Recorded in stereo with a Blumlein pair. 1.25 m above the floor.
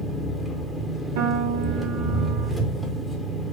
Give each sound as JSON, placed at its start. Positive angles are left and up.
{"t": 0.0, "sound": "an engine running", "azimuth_deg": 0, "distance_m": 0.8}
{"t": 1.2, "sound": "a piano", "azimuth_deg": -60, "distance_m": 0.8}